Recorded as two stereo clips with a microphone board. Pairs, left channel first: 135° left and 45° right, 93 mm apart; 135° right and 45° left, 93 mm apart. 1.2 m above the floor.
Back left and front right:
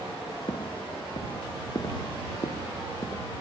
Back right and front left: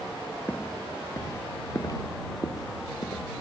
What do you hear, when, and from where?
0.5 s footsteps: 160° left; by 3.2 s 170° right